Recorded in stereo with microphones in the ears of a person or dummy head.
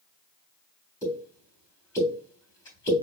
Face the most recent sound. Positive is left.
turn(degrees=20)  # may be behind; listen again after turning